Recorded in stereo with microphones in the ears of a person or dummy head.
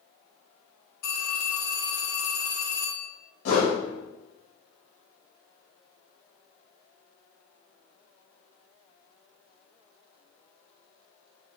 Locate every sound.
1.0 s a phone ringing: 55° left (ahead or behind), 1.7 m
3.5 s a whoosh: 75° left (ahead or behind), 2.0 m